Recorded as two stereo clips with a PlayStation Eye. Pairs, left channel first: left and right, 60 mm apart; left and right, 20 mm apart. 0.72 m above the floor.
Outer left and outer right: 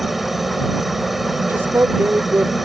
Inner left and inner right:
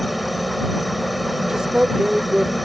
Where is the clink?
I don't hear a clink.